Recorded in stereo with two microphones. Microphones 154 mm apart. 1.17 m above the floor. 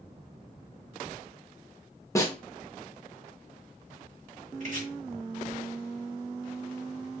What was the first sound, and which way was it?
A snare drum, 20° left (ahead or behind).